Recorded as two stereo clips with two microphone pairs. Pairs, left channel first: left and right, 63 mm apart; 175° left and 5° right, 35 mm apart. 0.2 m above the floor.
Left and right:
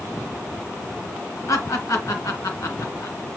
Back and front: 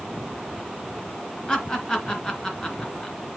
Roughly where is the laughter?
Left.